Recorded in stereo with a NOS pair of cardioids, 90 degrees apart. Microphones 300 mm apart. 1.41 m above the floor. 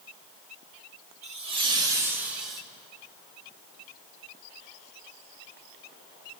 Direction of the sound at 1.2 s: 65° right.